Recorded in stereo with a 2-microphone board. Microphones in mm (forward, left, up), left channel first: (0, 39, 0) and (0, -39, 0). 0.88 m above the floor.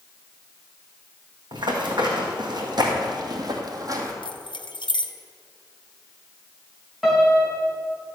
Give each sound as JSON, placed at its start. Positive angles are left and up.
{"t": 1.5, "sound": "running footsteps", "side_deg": -70, "distance_m": 2.5}
{"t": 4.2, "sound": "keys jangling", "side_deg": 80, "distance_m": 0.7}
{"t": 7.0, "sound": "a piano", "side_deg": -5, "distance_m": 2.5}